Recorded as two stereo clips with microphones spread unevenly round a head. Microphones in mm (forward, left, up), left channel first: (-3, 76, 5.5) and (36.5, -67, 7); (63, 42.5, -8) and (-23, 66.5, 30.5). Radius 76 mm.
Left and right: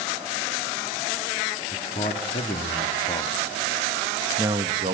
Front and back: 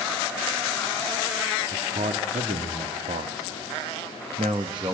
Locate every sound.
1.7 s a man speaking: 150° left, 1.8 m; by 4.9 s 125° right, 0.9 m